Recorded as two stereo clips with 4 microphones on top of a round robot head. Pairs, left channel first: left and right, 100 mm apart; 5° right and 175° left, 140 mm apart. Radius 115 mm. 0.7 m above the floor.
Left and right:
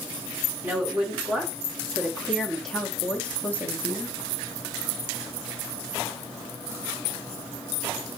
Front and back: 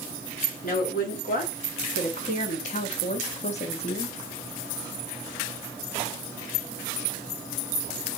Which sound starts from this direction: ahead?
A woman speaking, at 0.6 s.